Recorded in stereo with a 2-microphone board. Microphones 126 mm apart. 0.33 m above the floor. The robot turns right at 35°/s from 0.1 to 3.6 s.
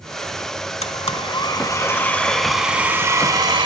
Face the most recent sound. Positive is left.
turn(degrees=-140)